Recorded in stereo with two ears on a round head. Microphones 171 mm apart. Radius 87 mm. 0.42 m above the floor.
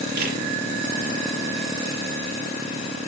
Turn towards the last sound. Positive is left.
turn(degrees=-50)  # may be behind; listen again after turning